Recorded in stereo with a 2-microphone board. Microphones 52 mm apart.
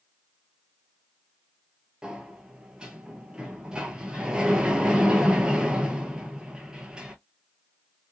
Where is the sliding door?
15° right (ahead or behind), 0.7 m.